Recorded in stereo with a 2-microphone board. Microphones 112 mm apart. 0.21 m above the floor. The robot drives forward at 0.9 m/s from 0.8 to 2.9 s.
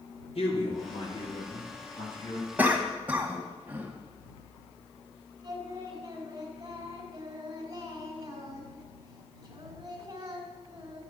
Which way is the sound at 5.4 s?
35° right (ahead or behind).